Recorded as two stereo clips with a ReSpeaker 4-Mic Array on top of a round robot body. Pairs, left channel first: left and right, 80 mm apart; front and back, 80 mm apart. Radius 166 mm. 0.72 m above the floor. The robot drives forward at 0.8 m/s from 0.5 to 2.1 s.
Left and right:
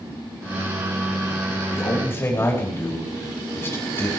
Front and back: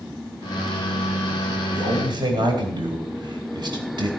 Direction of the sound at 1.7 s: 150° left.